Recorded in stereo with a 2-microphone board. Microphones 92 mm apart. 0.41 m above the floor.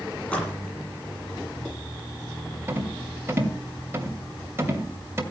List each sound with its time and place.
0.2 s a splash: 15° left (ahead or behind), 7.5 m
2.7 s a rattle: 30° right (ahead or behind), 2.5 m